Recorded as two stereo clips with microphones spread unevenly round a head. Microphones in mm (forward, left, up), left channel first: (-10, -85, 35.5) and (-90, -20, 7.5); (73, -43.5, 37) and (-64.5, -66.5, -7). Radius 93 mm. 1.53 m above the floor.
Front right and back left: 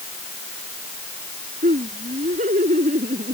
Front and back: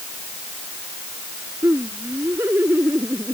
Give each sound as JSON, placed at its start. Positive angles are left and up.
{"t": 1.6, "sound": "laughter", "azimuth_deg": 110}